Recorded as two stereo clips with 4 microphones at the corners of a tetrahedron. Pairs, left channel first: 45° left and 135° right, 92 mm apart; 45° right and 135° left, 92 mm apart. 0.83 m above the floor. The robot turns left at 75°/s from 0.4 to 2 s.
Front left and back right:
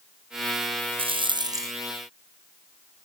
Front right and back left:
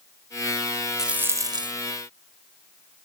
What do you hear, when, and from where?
1.0 s a rattle: 140° right; by 1.7 s 165° left